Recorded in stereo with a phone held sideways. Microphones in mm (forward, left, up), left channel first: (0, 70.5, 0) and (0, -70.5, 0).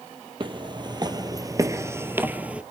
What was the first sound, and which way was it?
Footsteps, 35° right (ahead or behind).